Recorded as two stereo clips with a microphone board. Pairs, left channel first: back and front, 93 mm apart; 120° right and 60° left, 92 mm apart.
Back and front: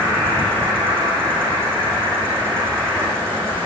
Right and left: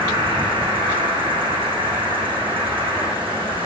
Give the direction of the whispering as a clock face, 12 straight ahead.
I don't hear whispering.